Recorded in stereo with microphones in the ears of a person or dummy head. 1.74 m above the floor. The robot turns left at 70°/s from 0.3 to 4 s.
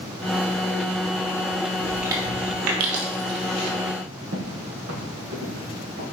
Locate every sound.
1.8 s chewing: 5° left (ahead or behind), 1.5 m; by 3.7 s 45° right (ahead or behind), 1.5 m
4.3 s footsteps: 60° right (ahead or behind), 3.5 m; by 6.0 s 45° right (ahead or behind), 3 m